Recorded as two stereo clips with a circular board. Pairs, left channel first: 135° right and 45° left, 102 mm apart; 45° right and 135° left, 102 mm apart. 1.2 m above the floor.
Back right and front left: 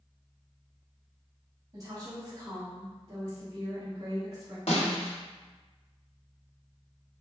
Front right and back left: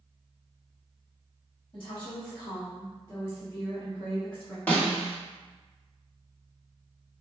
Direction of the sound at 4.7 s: 115° right.